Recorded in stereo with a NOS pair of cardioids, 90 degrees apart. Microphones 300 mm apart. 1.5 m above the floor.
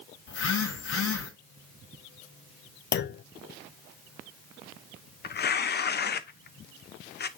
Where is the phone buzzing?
65° left, 6 m.